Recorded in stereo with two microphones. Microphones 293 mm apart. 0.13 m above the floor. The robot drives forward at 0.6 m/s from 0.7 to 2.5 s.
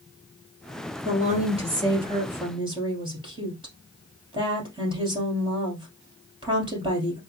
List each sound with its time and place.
1.1 s a woman speaking: 25° right (ahead or behind), 1.7 m; by 7.2 s 15° right (ahead or behind), 2.5 m